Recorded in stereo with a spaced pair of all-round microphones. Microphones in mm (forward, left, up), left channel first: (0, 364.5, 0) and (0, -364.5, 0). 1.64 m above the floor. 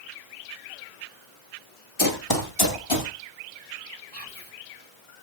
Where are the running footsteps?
25° left (ahead or behind), 1.8 m; by 3.1 s 40° left (ahead or behind), 2 m.